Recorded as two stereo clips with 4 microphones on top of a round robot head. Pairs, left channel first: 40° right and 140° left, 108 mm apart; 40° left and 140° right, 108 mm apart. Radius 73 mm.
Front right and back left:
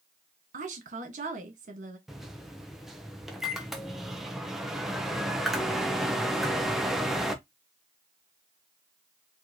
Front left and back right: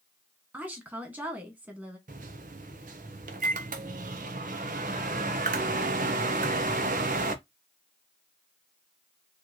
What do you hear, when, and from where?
0.5 s a woman speaking: 145° left, 1.6 m
2.1 s a microwave: 135° right, 0.6 m